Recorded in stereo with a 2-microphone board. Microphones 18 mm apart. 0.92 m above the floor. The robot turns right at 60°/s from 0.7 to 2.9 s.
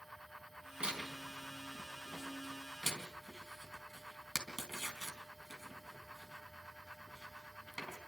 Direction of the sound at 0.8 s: 75° right (ahead or behind).